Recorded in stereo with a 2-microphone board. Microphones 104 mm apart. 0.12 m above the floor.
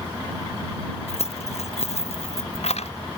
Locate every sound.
1.1 s keys jangling: 85° left